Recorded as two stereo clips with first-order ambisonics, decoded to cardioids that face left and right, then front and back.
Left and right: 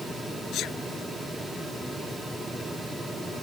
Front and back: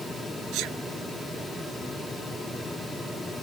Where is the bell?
I don't hear a bell.